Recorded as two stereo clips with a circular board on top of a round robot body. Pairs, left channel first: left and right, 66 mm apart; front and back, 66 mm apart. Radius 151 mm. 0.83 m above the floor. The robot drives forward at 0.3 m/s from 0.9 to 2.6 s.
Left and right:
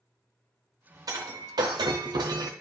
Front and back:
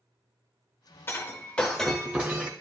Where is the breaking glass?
60° right, 0.5 m; by 2.5 s 115° right, 0.5 m.